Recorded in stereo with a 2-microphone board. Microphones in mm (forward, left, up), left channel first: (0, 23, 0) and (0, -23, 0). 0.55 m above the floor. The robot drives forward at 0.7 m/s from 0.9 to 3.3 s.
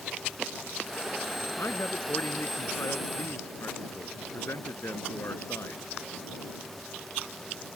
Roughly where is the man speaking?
Left.